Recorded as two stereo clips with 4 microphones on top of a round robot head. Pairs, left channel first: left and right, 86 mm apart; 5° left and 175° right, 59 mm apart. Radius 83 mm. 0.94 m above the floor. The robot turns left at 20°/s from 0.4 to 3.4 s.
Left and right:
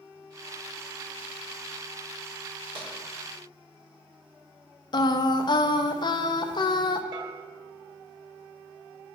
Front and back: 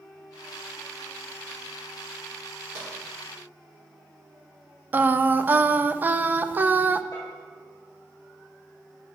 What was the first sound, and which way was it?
Tapping, 120° right.